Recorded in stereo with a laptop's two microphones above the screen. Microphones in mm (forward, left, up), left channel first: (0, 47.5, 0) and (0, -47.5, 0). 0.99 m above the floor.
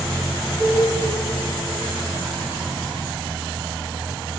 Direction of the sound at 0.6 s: 10° left (ahead or behind).